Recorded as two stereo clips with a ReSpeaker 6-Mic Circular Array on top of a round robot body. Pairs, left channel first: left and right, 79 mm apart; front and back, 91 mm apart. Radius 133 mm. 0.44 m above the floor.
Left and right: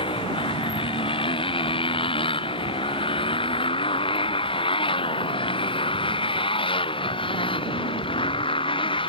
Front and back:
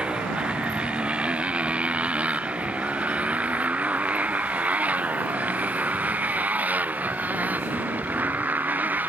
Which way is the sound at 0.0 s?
100° left.